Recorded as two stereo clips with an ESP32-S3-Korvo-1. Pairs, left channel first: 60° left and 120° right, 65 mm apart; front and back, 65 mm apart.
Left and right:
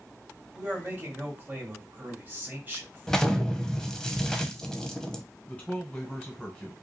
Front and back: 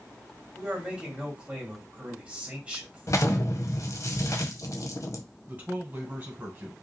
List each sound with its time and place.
0.5 s a man speaking: 125° right, 1.8 m
3.1 s an explosion: 15° right, 0.5 m
5.5 s a man speaking: 130° left, 1.7 m